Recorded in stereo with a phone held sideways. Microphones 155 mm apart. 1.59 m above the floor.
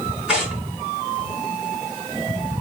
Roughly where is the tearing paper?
Centre.